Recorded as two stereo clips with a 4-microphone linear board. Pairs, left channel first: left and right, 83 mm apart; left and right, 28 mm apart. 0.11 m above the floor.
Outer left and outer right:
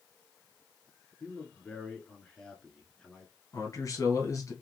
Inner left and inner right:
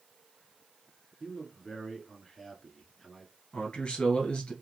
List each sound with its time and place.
1.2 s a man speaking: 10° left (ahead or behind), 1.2 m
3.5 s a man speaking: 40° left (ahead or behind), 1.4 m